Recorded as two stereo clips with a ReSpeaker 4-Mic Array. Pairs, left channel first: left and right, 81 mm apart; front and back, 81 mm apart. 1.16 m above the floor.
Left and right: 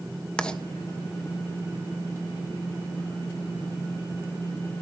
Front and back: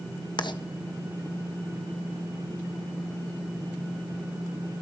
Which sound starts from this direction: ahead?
Writing, at 0.4 s.